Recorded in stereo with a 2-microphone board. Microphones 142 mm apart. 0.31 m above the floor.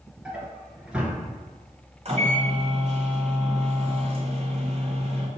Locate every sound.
0.2 s a drawer: 5° right (ahead or behind), 1.1 m
2.0 s a microwave: 50° right (ahead or behind), 1.3 m